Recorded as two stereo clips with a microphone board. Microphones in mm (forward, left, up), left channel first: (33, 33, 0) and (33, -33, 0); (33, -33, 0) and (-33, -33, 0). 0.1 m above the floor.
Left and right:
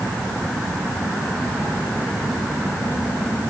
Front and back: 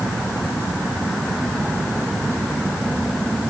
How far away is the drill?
No drill in this recording.